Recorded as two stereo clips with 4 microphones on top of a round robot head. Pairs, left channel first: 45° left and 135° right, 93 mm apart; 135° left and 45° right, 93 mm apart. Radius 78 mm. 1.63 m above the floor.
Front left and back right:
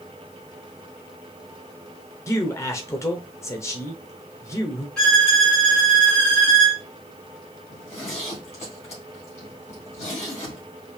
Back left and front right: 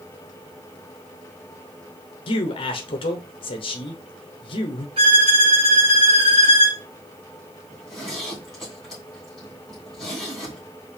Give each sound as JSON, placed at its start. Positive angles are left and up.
{"t": 2.3, "sound": "a man speaking", "azimuth_deg": 105, "distance_m": 0.9}
{"t": 5.0, "sound": "a violin", "azimuth_deg": -35, "distance_m": 1.7}
{"t": 7.7, "sound": "a zipper", "azimuth_deg": 50, "distance_m": 3.0}